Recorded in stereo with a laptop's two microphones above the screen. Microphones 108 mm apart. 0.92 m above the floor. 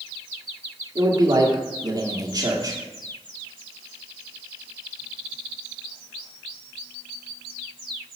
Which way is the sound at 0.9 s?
40° right (ahead or behind).